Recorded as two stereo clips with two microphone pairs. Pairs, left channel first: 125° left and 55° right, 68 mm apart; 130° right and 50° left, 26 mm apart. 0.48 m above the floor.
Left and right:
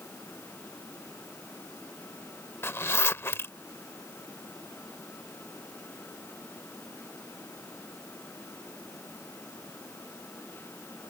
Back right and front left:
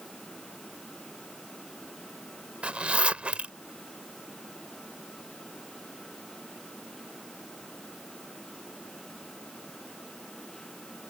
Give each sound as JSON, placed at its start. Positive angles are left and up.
{"t": 2.6, "sound": "a zipper", "azimuth_deg": 75}